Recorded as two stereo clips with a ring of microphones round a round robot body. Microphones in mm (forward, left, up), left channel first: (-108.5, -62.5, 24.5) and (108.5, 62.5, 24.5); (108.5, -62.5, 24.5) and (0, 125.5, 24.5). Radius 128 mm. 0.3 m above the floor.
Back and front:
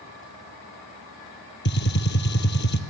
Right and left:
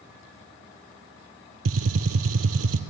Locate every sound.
1.6 s a gunshot: 160° left, 1.4 m